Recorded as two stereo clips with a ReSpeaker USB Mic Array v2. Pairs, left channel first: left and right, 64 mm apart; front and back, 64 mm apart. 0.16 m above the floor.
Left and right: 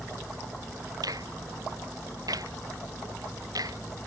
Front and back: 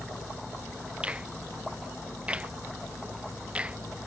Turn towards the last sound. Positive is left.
turn(degrees=-105)